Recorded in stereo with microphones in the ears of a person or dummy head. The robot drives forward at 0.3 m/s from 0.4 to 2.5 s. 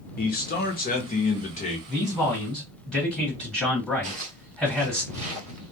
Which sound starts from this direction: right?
Footsteps, at 4.0 s.